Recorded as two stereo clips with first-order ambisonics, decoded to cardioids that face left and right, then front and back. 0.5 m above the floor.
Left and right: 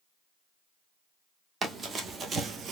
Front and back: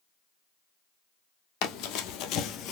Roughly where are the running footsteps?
Ahead.